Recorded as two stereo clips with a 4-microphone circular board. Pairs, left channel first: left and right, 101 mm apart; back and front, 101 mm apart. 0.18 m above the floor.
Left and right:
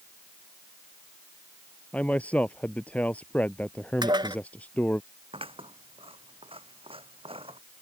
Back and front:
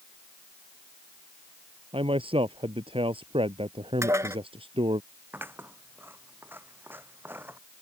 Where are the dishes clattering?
55° right.